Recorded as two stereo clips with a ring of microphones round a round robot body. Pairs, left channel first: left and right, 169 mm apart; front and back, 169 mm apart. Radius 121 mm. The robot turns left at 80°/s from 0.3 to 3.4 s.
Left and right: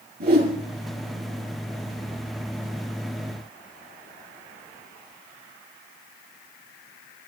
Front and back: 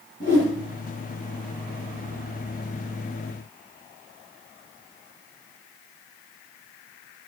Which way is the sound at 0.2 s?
60° right.